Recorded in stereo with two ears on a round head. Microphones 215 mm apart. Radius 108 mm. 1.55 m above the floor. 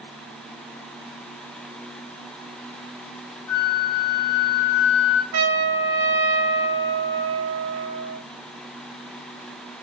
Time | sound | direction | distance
3.5 | a flute | 15° left (ahead or behind) | 0.8 m
5.3 | a trumpet | 80° right | 0.7 m